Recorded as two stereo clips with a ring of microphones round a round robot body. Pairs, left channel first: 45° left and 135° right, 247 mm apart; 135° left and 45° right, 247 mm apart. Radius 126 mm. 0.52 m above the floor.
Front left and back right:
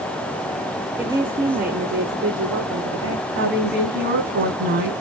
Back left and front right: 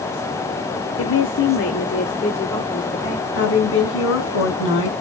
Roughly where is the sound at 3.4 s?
Behind.